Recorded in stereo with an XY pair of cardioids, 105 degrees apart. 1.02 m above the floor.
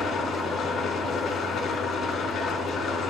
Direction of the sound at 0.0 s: 55° left.